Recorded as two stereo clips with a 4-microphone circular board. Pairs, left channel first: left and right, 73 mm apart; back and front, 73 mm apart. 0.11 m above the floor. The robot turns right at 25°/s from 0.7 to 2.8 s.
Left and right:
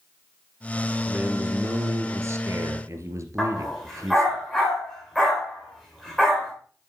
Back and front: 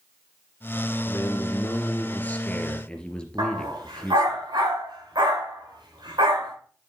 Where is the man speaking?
155° right, 2.5 m; by 4.4 s 110° right, 2.5 m.